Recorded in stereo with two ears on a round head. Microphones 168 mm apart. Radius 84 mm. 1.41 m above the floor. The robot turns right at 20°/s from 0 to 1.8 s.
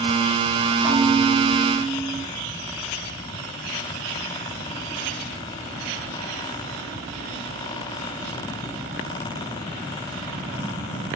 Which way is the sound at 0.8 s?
40° right (ahead or behind).